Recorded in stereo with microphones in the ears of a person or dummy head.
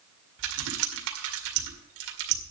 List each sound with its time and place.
0.4 s typing on a keyboard: 65° right (ahead or behind), 2 m